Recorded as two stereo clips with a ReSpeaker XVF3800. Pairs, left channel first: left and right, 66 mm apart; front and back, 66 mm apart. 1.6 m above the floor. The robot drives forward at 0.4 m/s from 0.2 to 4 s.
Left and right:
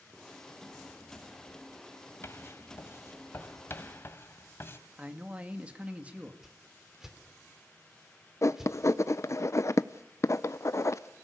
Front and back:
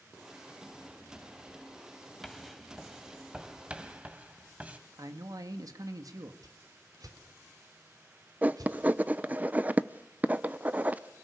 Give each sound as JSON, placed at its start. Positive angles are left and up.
{"t": 2.2, "sound": "writing", "azimuth_deg": 85, "distance_m": 1.7}
{"t": 5.0, "sound": "a man speaking", "azimuth_deg": -160, "distance_m": 2.0}
{"t": 6.4, "sound": "a whoosh", "azimuth_deg": -175, "distance_m": 3.0}
{"t": 8.4, "sound": "writing", "azimuth_deg": 120, "distance_m": 0.7}